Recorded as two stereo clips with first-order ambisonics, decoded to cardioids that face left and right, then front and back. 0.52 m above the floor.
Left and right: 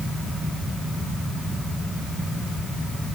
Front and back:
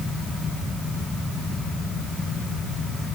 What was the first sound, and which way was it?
Only background noise.